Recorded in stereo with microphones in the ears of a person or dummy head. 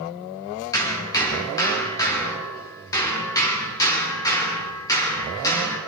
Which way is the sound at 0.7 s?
20° left (ahead or behind).